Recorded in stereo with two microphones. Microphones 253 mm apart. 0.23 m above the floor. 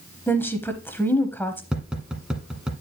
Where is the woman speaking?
10° left (ahead or behind), 0.9 m.